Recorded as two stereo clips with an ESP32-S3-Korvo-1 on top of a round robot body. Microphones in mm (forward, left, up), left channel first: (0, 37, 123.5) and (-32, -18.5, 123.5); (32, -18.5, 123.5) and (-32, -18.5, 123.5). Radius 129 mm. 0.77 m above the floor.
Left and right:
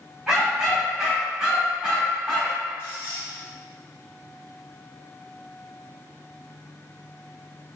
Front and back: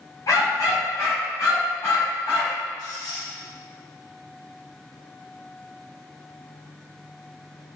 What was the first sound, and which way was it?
A dog barking, 40° right.